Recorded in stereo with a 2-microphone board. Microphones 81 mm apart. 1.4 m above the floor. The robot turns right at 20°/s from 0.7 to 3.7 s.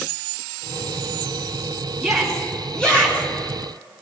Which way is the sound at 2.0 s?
5° right (ahead or behind).